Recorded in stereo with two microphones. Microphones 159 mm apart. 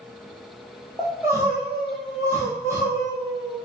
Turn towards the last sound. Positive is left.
turn(degrees=-15)  # may be behind; listen again after turning